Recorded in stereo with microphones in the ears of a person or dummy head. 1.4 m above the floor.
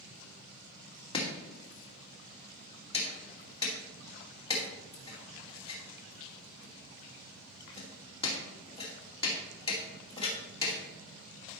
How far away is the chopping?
About 2 m.